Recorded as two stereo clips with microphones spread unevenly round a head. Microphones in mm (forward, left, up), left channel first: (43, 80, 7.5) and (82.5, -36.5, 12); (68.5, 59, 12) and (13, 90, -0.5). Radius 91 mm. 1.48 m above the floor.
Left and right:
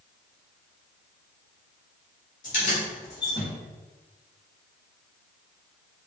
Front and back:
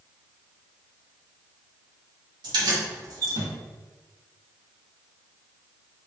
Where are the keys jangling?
155° left, 1.2 m; by 3.5 s 170° right, 0.6 m.